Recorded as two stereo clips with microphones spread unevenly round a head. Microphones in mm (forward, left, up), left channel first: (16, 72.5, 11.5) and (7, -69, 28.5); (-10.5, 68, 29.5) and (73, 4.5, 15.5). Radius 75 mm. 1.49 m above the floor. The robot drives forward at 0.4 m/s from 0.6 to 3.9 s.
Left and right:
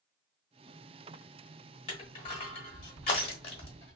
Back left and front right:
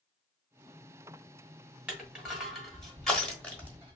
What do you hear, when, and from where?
1.9 s crushing: 45° left, 1.5 m; by 4.0 s 105° left, 1.4 m